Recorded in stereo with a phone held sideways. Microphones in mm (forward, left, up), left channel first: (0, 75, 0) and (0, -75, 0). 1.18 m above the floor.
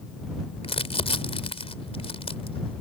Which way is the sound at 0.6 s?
40° left (ahead or behind).